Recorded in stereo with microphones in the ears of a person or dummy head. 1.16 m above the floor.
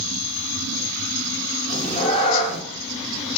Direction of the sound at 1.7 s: 45° left (ahead or behind).